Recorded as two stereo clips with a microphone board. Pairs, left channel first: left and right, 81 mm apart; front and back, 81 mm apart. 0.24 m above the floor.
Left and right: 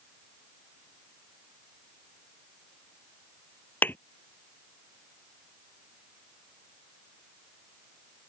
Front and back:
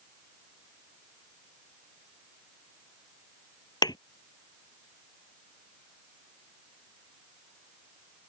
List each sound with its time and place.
3.8 s a thud: 25° left